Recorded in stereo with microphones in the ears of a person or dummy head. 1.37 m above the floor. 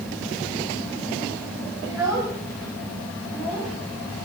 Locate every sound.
1.8 s a child speaking: 15° right (ahead or behind), 5.5 m; by 3.7 s 10° left (ahead or behind), 6 m